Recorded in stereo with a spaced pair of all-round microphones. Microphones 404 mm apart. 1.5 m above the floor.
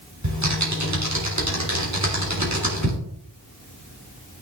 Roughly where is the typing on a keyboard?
Right.